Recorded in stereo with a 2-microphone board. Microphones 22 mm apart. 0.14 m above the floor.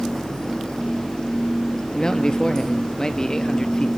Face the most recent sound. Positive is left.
turn(degrees=35)  # may be behind; listen again after turning